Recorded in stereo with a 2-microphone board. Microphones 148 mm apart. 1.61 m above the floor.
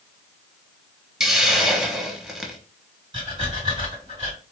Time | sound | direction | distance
1.2 | a hiss | 5° right (ahead or behind) | 0.6 m
3.1 | breathing | 35° right (ahead or behind) | 1.9 m